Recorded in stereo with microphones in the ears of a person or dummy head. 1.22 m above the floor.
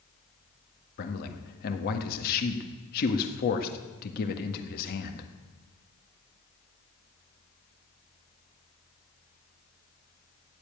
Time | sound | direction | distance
1.0 | a man speaking | 45° left (ahead or behind) | 1.6 m